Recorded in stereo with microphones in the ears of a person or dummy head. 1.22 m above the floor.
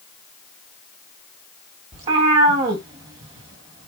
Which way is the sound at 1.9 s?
25° right (ahead or behind).